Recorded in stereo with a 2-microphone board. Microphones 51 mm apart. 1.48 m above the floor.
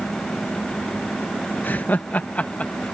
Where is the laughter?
35° left (ahead or behind); by 2.8 s 25° left (ahead or behind).